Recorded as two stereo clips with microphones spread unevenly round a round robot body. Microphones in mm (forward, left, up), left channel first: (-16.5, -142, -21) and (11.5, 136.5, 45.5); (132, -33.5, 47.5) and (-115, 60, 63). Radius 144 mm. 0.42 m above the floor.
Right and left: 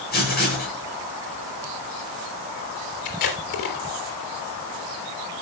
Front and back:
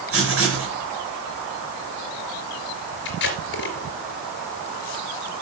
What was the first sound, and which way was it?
Writing, 155° right.